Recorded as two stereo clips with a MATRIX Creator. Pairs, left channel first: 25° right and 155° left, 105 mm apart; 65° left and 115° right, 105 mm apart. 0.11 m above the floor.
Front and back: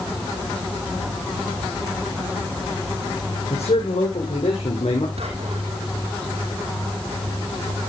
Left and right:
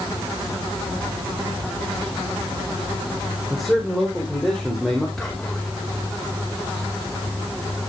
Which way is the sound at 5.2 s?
155° left.